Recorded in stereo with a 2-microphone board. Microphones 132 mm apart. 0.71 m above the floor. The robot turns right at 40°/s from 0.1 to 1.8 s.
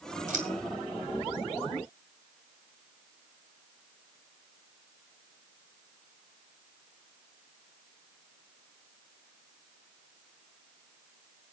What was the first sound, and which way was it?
Scissors, 85° right.